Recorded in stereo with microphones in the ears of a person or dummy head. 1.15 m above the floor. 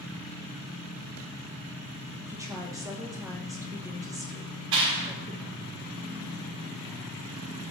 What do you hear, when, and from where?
2.3 s a woman speaking: 20° right (ahead or behind), 1.3 m
4.7 s a clap: 75° right (ahead or behind), 3 m